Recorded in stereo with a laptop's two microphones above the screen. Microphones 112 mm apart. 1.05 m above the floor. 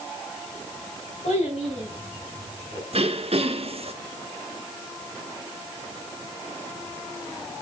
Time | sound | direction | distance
1.2 | a child speaking | 80° left | 7.5 m
2.9 | throat clearing | 60° right (ahead or behind) | 1.2 m